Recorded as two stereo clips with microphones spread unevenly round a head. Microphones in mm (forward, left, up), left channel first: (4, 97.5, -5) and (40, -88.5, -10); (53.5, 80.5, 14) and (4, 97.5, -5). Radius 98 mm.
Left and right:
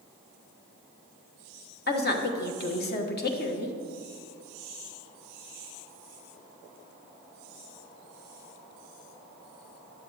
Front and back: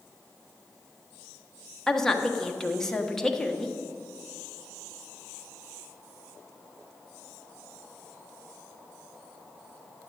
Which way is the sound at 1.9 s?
65° left.